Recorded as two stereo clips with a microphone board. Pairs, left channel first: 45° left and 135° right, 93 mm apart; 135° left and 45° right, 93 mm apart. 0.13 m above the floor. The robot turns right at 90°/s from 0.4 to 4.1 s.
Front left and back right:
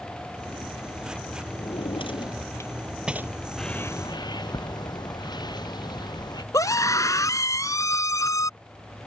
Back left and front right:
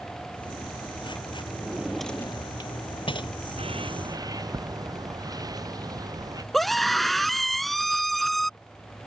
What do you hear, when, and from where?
1.6 s a drawer: 10° left; by 3.3 s 165° left
3.6 s a bird: 45° right; by 6.4 s 5° left
6.5 s a scream: 50° left